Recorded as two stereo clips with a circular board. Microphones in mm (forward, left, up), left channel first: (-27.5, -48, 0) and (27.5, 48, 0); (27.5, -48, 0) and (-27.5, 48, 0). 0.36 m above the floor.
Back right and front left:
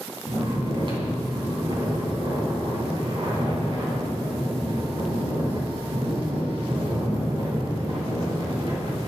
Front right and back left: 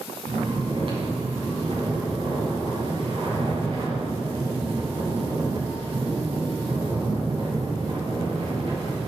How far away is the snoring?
About 3 m.